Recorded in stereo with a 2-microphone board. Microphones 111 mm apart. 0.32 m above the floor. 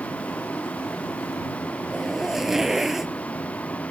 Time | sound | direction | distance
0.0 | a vehicle | 10° left (ahead or behind) | ?
1.9 | a zipper | 5° right (ahead or behind) | ?